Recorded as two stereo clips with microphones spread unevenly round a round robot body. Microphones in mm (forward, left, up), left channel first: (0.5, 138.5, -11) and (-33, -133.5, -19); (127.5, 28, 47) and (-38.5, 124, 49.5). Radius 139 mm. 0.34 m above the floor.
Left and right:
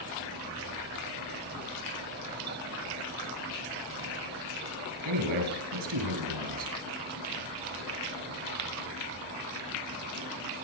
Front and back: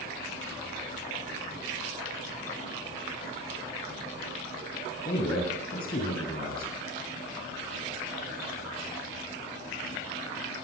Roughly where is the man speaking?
Right.